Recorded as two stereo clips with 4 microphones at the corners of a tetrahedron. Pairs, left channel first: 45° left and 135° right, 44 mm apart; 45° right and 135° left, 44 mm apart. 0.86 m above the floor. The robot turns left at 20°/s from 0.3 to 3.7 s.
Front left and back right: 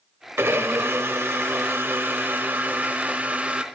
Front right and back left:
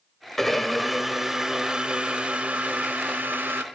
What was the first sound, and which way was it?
A blender, 125° right.